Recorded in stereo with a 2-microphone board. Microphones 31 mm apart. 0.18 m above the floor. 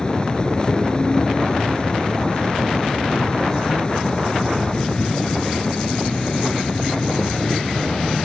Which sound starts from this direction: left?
An insect, at 0.0 s.